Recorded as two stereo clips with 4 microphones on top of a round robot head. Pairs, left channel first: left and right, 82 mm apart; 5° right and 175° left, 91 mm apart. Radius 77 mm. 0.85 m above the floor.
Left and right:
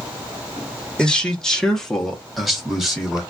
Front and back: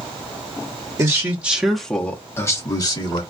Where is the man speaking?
160° left, 1.0 m; by 3.2 s 5° right, 1.3 m.